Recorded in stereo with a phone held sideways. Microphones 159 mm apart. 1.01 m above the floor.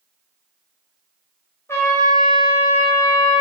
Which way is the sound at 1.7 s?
15° left (ahead or behind).